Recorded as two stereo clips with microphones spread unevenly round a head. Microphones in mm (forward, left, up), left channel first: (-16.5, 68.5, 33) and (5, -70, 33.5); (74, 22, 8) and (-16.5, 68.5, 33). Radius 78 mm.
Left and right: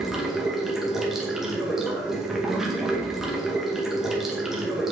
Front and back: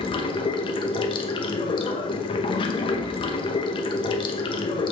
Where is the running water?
5° left, 0.8 m.